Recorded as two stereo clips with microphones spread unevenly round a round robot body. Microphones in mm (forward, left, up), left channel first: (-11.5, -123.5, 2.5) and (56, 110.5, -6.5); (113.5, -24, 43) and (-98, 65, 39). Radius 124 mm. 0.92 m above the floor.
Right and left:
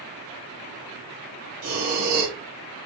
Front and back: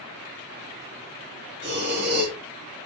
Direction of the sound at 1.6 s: 110° left.